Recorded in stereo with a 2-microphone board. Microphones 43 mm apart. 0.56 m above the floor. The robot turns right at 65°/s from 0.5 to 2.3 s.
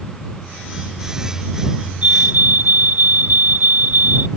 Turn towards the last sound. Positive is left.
turn(degrees=-45)  # may be behind; listen again after turning